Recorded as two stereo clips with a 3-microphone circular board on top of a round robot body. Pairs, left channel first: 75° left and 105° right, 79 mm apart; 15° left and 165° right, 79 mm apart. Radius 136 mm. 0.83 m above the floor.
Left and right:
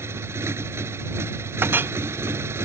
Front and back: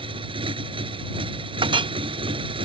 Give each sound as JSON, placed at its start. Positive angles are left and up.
{"t": 0.0, "sound": "a motorcycle", "azimuth_deg": -165}
{"t": 1.6, "sound": "a clink", "azimuth_deg": -170}